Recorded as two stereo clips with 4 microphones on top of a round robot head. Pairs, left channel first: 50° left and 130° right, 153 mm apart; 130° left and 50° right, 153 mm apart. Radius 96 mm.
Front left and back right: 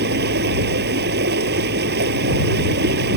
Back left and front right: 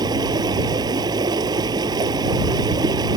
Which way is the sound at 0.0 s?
115° right.